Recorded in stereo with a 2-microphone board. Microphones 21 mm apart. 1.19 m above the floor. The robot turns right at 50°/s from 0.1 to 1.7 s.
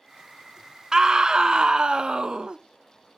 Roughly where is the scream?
Behind right.